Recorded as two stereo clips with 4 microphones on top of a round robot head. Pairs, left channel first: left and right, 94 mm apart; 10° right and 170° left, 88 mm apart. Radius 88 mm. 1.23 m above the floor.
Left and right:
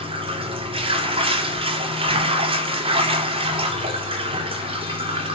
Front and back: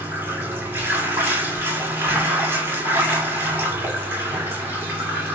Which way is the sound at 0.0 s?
115° right.